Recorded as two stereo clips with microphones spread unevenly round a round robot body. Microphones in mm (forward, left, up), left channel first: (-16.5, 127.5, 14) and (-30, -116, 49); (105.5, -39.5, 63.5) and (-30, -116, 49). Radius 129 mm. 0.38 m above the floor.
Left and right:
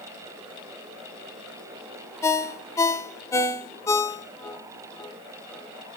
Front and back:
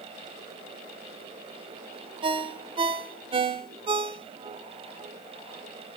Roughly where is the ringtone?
Behind.